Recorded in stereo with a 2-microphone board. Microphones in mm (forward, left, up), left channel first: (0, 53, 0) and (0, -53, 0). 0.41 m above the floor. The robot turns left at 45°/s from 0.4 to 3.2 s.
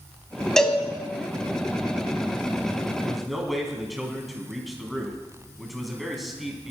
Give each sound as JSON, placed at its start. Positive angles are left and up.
{"t": 0.6, "sound": "a cowbell", "side_deg": 5, "distance_m": 1.8}
{"t": 3.0, "sound": "a man speaking", "side_deg": 5, "distance_m": 3.5}